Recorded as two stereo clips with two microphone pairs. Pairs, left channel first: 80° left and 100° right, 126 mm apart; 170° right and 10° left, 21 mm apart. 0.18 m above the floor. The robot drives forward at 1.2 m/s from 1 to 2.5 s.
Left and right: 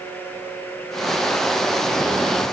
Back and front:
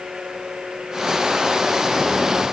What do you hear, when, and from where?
Only background noise.